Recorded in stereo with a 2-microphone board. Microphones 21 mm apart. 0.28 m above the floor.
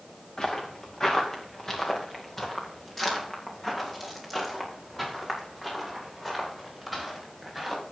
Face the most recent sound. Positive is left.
turn(degrees=0)  # may be behind; listen again after turning